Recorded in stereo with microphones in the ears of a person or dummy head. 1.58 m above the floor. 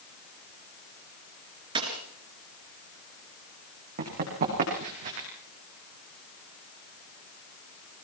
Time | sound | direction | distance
1.8 | a dropped coin | 25° right (ahead or behind) | 3.5 m
4.0 | running footsteps | 45° right (ahead or behind) | 8 m